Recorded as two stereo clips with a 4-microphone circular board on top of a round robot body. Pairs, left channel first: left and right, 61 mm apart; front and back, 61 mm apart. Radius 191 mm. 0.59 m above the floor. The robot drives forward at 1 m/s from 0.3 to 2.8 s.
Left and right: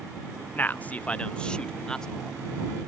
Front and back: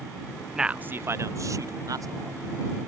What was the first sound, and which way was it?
A man speaking, 100° left.